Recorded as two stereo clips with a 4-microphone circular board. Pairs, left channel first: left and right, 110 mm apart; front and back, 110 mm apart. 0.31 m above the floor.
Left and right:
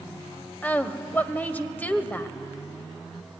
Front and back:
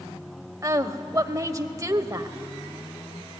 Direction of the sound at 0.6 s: 150° left.